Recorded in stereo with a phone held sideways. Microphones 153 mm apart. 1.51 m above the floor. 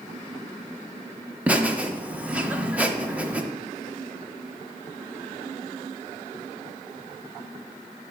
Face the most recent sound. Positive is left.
turn(degrees=-10)  # may be behind; listen again after turning